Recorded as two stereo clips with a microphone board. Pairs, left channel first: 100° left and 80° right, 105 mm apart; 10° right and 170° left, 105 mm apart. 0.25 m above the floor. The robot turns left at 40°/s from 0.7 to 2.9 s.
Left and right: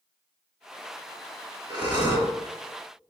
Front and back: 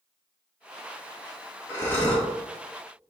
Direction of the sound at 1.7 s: 70° right.